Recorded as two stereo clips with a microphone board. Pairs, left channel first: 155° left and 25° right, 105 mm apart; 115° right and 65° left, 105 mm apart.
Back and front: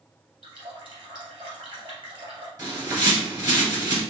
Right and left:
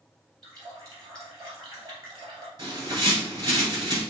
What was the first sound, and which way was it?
A running tap, 15° left.